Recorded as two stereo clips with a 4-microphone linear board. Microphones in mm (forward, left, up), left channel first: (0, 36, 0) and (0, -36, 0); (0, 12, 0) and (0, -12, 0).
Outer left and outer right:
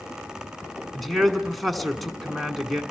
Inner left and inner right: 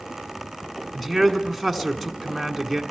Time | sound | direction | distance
0.9 | a man speaking | centre (ahead or behind) | 1.2 m